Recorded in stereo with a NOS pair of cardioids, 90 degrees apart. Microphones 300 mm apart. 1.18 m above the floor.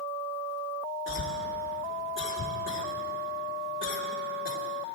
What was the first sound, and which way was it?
A cough, 40° left.